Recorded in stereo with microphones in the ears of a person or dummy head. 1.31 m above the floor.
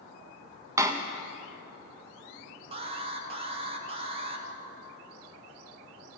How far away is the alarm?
About 1.2 m.